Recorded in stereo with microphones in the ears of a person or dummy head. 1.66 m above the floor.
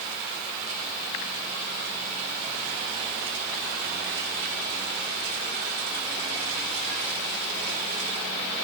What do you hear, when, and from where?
Only background noise.